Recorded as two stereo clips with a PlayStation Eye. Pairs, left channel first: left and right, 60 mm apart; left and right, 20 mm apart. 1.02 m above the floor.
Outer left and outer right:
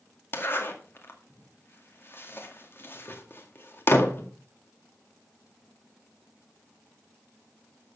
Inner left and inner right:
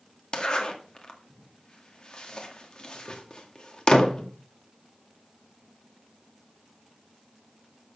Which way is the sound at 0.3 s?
40° left (ahead or behind).